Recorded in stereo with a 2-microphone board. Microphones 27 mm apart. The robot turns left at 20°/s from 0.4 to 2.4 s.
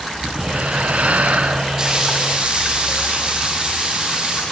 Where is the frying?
25° right (ahead or behind), 7 m; by 4.4 s 35° right (ahead or behind), 7 m.